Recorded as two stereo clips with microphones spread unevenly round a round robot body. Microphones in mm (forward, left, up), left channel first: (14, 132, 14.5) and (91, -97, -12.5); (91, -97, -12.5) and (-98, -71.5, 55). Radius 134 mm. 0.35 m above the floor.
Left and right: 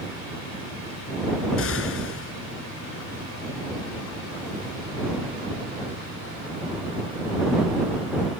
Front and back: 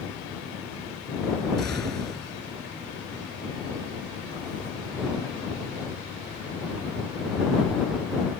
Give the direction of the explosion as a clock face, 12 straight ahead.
9 o'clock.